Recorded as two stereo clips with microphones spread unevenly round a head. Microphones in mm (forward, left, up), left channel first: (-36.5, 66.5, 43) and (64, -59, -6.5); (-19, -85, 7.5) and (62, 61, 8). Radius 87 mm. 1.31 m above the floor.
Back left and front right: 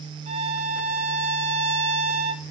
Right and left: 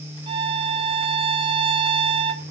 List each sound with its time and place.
0.3 s a violin: 10° left, 0.7 m